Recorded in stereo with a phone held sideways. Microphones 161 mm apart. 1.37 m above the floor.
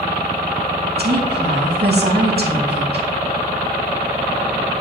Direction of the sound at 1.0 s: 80° right.